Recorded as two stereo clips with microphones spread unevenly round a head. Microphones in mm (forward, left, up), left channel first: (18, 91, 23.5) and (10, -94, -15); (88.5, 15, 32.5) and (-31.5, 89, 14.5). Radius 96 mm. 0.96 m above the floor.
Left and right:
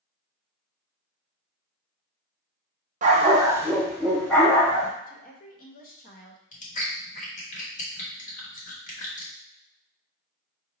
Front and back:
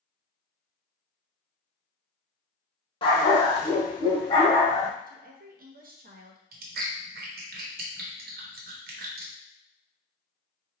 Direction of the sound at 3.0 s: 45° right.